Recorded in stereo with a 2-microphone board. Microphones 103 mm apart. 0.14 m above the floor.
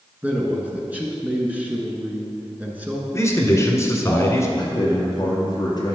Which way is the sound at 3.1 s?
30° left (ahead or behind).